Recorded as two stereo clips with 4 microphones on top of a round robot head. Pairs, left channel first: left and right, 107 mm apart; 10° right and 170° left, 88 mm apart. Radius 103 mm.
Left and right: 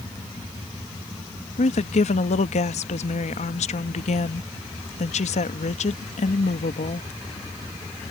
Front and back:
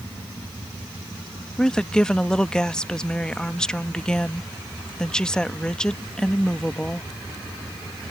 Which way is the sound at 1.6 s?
70° left.